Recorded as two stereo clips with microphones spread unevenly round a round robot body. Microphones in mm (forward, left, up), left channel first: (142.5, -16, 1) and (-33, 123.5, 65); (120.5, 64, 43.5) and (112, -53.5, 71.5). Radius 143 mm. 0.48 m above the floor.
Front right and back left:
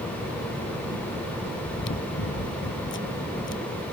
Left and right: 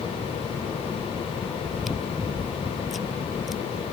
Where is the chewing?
5° right.